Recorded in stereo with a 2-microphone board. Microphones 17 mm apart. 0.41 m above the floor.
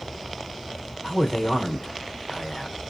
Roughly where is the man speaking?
Left.